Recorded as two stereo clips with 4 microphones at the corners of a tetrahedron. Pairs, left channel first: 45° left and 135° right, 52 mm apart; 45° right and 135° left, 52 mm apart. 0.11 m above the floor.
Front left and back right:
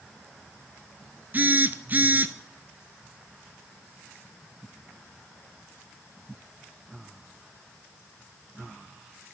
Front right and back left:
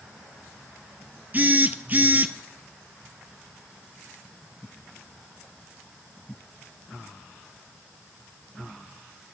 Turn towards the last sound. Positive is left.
turn(degrees=180)